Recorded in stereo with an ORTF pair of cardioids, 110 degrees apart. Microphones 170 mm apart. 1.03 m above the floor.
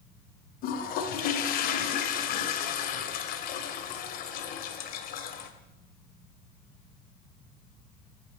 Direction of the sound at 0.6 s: 70° left.